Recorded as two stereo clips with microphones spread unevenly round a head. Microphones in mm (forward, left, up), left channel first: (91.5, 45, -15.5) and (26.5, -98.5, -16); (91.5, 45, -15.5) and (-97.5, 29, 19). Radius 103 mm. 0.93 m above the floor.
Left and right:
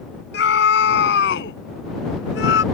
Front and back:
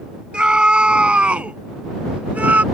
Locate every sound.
0.3 s a scream: 100° left; by 2.6 s 105° left